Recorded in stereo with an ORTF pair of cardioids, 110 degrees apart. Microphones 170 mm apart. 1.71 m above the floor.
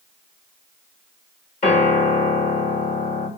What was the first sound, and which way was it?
A piano, 40° left.